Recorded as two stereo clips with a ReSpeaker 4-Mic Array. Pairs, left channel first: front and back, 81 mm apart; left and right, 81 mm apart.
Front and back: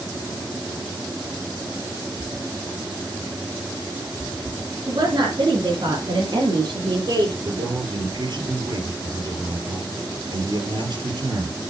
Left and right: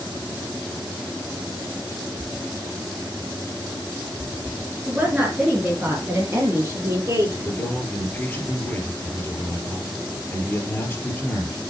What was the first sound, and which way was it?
A woman speaking, 165° right.